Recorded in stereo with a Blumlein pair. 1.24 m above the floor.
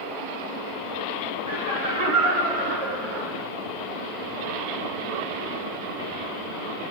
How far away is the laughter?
About 3 m.